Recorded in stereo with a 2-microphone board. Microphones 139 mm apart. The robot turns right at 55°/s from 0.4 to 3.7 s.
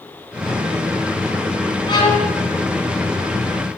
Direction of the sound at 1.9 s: 35° left (ahead or behind).